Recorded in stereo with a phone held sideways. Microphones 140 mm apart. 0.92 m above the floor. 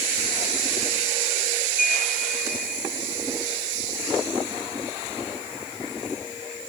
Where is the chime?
80° left.